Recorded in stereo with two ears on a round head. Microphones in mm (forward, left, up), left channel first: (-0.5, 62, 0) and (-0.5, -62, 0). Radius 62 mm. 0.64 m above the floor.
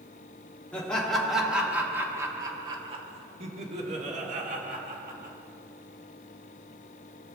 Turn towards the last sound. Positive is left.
turn(degrees=-65)  # may be behind; listen again after turning